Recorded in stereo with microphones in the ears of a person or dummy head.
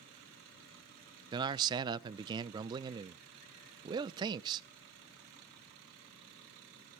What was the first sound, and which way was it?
A man speaking, 20° right (ahead or behind).